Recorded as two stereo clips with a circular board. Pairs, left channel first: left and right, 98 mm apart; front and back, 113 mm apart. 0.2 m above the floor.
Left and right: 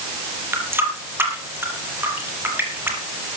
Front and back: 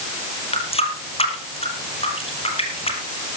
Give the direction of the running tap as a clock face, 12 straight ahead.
1 o'clock.